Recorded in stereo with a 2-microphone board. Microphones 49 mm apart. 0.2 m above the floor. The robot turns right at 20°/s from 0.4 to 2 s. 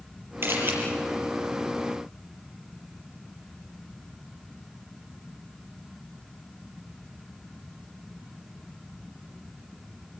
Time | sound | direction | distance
0.4 | a camera shutter | 50° right (ahead or behind) | 5.5 m